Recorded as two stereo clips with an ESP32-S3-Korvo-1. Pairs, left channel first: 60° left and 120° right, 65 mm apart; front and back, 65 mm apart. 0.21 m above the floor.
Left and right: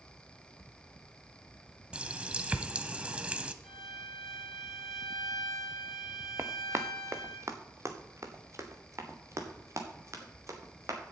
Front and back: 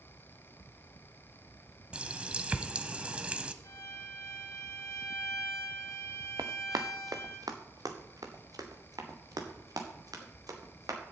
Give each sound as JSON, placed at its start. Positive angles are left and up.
{"t": 1.9, "sound": "a running tap", "azimuth_deg": -150, "distance_m": 0.7}
{"t": 3.6, "sound": "a violin", "azimuth_deg": -30, "distance_m": 1.8}
{"t": 6.4, "sound": "running footsteps", "azimuth_deg": -170, "distance_m": 1.2}